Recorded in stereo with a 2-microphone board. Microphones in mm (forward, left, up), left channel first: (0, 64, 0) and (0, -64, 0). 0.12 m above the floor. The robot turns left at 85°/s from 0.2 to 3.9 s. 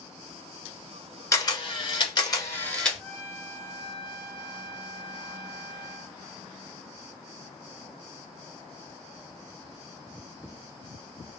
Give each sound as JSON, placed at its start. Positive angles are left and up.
{"t": 1.3, "sound": "a camera shutter", "azimuth_deg": 140, "distance_m": 1.1}
{"t": 3.0, "sound": "a trumpet", "side_deg": 0, "distance_m": 1.6}